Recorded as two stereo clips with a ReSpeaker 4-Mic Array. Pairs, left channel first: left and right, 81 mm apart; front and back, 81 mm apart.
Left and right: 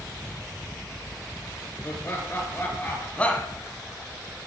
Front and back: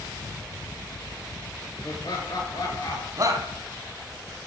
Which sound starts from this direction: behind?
A shout, at 3.2 s.